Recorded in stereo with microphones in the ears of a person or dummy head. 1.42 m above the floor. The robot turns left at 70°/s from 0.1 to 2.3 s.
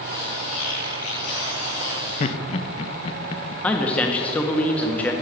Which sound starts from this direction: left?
Laughter, at 2.2 s.